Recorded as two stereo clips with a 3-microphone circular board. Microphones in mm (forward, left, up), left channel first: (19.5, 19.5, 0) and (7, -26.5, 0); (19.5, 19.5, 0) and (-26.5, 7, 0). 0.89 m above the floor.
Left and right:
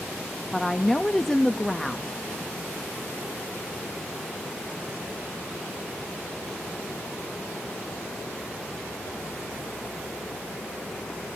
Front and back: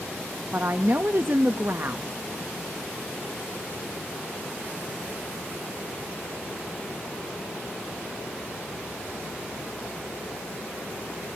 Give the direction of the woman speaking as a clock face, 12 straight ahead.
7 o'clock.